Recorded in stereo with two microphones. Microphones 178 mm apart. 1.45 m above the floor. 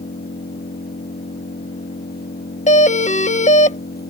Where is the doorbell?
40° left (ahead or behind).